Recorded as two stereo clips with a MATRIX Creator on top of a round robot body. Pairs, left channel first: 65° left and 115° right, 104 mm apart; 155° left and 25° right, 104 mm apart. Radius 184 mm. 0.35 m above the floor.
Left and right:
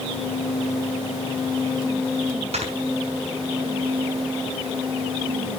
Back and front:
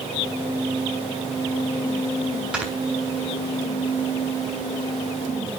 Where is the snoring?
105° right, 3.5 m.